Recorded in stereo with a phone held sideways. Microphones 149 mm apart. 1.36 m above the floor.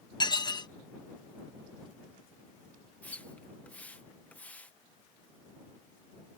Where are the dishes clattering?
30° left (ahead or behind).